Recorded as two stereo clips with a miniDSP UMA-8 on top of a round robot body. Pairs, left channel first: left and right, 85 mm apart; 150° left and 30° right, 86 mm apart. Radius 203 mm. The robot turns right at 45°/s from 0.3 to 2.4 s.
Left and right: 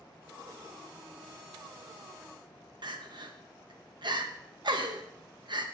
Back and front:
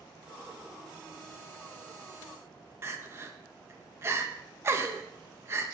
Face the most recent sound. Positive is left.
turn(degrees=-85)